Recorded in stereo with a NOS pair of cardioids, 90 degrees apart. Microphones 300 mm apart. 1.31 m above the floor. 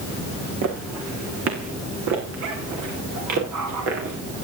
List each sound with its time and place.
0.6 s footsteps: 60° right, 4.5 m; by 4.2 s 70° right, 8 m